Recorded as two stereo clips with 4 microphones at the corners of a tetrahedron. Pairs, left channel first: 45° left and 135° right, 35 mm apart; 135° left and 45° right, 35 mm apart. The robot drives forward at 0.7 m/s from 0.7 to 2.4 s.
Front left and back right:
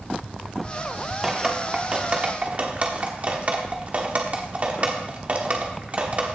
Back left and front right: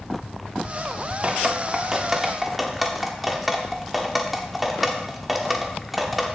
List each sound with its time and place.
1.2 s dripping: 60° right, 1.2 m; by 6.4 s 130° right, 1.2 m